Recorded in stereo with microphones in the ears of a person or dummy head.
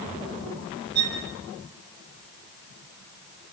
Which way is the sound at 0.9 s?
25° right (ahead or behind).